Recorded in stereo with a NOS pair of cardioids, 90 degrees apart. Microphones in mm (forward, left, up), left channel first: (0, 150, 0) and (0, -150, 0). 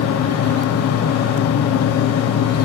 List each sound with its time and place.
0.0 s a fan: 55° left, 0.8 m